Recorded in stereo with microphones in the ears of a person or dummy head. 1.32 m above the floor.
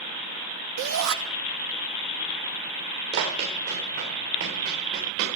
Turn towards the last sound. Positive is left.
turn(degrees=-65)  # may be behind; listen again after turning